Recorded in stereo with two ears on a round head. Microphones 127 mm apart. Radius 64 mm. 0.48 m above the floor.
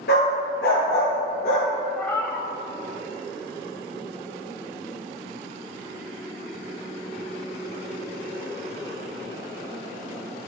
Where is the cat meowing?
15° left (ahead or behind), 0.7 m.